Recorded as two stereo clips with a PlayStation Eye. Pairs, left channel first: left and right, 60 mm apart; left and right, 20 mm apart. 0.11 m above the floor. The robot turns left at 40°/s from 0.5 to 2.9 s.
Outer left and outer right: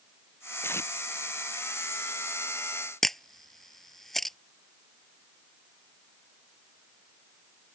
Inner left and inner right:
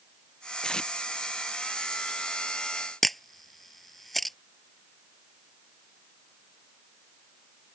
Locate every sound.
0.6 s tape being pulled: 40° left (ahead or behind); by 0.9 s 50° left (ahead or behind)
3.0 s a camera shutter: 5° left (ahead or behind)